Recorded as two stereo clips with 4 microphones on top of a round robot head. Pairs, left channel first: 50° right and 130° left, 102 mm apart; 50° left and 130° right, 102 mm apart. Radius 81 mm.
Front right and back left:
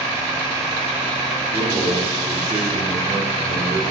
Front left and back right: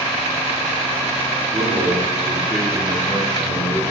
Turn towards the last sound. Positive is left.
turn(degrees=110)